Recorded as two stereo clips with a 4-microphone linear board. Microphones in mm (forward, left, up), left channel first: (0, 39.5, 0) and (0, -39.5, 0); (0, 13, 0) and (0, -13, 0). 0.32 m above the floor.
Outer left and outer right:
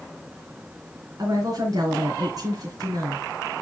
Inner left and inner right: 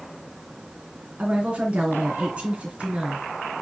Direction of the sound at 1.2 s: 55° right (ahead or behind).